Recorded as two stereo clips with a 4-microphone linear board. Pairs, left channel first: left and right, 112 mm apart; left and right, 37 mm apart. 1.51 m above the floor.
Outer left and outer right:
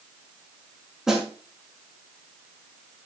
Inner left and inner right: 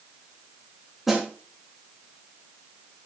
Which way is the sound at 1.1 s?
5° right (ahead or behind).